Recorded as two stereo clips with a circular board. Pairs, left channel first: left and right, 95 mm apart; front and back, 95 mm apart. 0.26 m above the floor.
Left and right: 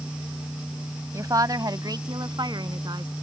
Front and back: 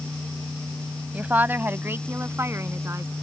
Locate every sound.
1.1 s a woman speaking: 115° right; by 3.1 s 125° right